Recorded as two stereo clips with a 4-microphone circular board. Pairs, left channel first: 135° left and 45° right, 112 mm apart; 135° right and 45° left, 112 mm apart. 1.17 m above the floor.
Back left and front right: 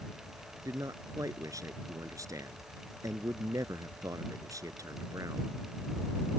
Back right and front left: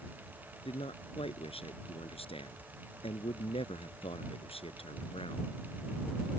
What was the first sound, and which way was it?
A man speaking, 105° right.